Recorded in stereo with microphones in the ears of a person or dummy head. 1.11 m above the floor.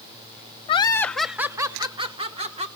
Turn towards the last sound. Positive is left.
turn(degrees=-35)  # may be behind; listen again after turning